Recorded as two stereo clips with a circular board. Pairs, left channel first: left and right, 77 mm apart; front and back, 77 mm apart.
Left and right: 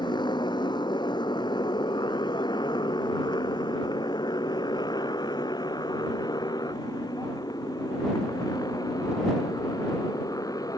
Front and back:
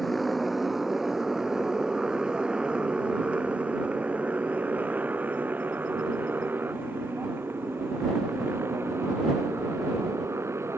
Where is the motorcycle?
90° left; by 10.8 s 125° left.